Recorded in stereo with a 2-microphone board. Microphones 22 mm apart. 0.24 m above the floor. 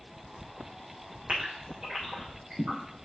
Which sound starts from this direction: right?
A gasp, at 1.3 s.